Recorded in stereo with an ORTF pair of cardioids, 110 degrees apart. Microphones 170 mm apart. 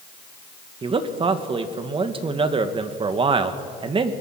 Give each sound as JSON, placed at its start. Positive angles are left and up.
{"t": 0.8, "sound": "a man speaking", "azimuth_deg": -30, "distance_m": 1.9}